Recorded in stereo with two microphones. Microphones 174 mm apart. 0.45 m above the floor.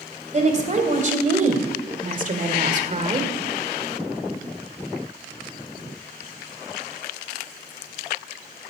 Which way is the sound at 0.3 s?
40° right (ahead or behind).